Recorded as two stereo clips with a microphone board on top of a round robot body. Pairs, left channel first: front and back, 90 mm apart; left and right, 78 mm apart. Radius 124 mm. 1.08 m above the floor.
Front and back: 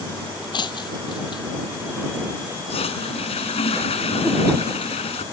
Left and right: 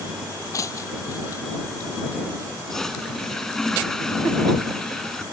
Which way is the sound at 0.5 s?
35° left.